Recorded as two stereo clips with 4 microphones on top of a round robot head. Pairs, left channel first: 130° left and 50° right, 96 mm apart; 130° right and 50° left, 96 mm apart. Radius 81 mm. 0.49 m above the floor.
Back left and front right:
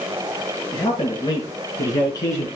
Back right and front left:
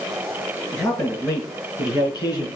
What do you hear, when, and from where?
0.7 s a man speaking: 170° left, 6.5 m; by 2.5 s 170° right, 6.5 m